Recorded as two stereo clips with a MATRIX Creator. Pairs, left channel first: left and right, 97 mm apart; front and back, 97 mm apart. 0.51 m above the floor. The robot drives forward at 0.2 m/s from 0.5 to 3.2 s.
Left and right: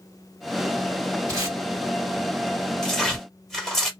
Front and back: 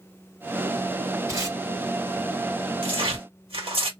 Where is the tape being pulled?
130° right, 2.0 m.